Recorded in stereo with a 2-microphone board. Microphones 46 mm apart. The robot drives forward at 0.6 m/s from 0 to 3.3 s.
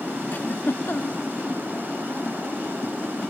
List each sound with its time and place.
0.3 s a giggle: 45° left (ahead or behind); by 1.2 s 60° left (ahead or behind)